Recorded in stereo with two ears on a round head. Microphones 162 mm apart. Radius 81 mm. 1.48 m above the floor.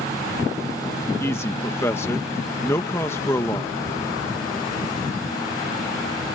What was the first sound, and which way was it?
A man speaking, 15° left (ahead or behind).